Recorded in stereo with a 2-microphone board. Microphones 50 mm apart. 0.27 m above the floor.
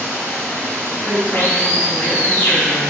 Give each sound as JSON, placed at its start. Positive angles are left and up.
{"t": 0.0, "sound": "running water", "side_deg": 45, "distance_m": 1.6}
{"t": 1.0, "sound": "a woman speaking", "side_deg": -30, "distance_m": 1.5}